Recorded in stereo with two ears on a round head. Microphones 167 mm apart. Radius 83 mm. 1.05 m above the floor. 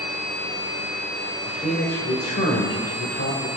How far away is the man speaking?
About 4 m.